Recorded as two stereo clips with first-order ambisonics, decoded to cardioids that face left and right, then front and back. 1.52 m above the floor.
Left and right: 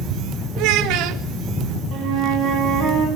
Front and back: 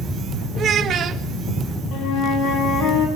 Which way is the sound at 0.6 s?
120° right.